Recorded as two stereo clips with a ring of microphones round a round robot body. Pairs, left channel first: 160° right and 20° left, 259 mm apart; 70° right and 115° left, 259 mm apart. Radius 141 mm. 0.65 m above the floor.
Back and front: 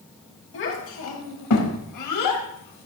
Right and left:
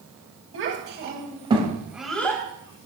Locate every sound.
0.5 s a child speaking: 155° left, 3 m; by 2.9 s 135° right, 3 m